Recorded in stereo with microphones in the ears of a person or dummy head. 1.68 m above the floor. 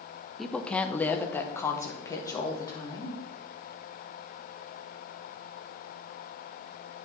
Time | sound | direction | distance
0.4 | a woman speaking | centre (ahead or behind) | 0.7 m